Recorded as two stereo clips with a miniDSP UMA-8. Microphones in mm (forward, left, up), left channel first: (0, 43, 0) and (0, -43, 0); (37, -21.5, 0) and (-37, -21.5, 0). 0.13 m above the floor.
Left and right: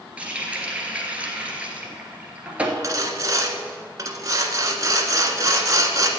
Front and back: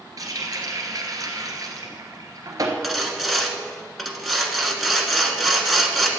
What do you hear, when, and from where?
0.2 s a running tap: 160° right, 1.6 m
2.8 s sawing: 90° right, 1.2 m